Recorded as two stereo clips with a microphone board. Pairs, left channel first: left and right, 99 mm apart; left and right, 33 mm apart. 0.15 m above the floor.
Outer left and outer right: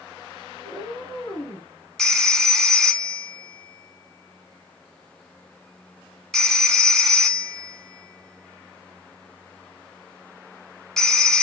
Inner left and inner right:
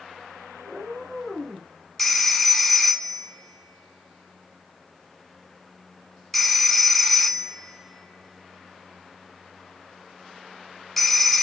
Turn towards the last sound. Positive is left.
turn(degrees=5)  # may be behind; listen again after turning